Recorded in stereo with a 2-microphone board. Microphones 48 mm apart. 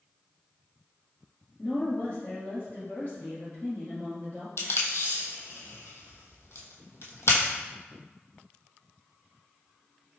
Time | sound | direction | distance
1.6 | a woman speaking | 30° left (ahead or behind) | 1.8 m
4.6 | tape being pulled | 70° left (ahead or behind) | 0.8 m